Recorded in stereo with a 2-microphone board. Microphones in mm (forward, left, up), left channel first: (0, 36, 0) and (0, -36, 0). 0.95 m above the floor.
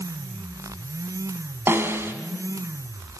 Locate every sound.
1.7 s a snare drum: 35° right (ahead or behind), 3 m